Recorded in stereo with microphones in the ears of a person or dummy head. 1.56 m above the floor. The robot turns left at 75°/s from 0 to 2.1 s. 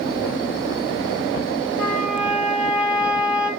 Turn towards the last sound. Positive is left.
turn(degrees=-5)  # may be behind; listen again after turning